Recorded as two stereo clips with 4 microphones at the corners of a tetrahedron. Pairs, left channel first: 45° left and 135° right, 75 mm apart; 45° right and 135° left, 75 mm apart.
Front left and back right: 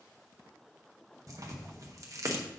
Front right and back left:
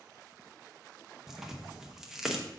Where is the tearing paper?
140° right, 0.9 m.